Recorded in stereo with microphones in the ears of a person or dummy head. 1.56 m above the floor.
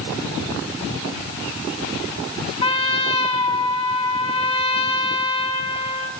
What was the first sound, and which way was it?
A trumpet, 25° left (ahead or behind).